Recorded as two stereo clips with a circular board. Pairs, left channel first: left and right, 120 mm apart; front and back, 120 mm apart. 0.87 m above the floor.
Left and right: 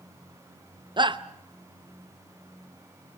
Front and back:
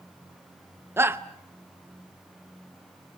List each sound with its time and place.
1.0 s a shout: 115° right, 0.7 m